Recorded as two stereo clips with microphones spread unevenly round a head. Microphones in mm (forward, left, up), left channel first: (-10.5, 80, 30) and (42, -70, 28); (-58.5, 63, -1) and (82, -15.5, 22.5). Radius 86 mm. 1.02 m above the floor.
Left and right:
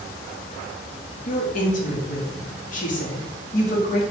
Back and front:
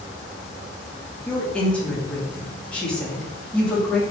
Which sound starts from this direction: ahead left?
A woman speaking, at 1.3 s.